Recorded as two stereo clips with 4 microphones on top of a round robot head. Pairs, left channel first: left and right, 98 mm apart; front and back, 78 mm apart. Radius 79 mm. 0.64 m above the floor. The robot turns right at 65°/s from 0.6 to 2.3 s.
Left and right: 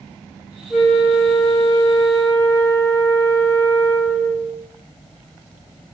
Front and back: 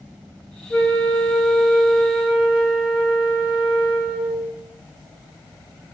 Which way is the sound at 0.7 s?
5° left.